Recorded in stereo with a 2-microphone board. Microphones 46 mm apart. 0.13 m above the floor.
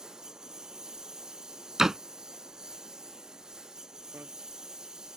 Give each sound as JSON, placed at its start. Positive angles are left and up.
{"t": 0.0, "sound": "a lawn mower", "side_deg": -10}
{"t": 1.8, "sound": "a door slam", "side_deg": -10}
{"t": 4.1, "sound": "a bicycle bell", "side_deg": -55}